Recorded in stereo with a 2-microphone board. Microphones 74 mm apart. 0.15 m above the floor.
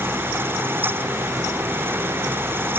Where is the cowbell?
I don't hear a cowbell.